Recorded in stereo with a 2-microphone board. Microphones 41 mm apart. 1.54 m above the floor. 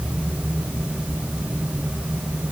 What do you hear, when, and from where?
Only background noise.